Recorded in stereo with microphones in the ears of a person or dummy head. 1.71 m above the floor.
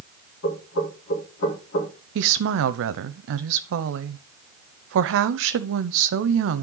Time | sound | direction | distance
0.4 | knocking | 70° left (ahead or behind) | 4 m
2.1 | a woman speaking | 70° right (ahead or behind) | 0.7 m